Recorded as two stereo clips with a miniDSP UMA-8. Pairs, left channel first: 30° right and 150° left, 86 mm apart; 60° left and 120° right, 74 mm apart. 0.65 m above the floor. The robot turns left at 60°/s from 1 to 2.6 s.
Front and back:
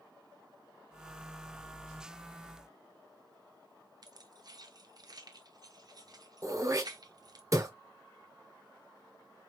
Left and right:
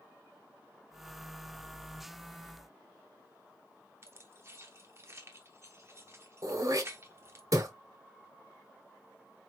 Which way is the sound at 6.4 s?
160° right.